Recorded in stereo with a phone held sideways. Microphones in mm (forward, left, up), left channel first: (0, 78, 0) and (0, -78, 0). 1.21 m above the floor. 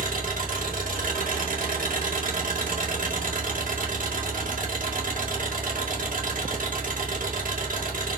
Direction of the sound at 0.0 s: 65° right (ahead or behind).